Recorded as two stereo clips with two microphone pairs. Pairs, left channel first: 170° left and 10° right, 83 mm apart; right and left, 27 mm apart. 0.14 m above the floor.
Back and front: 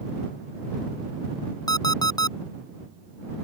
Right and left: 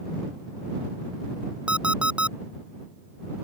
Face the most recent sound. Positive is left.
turn(degrees=130)